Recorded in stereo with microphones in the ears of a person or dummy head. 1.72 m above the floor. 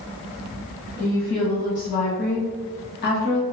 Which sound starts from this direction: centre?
A woman speaking, at 1.0 s.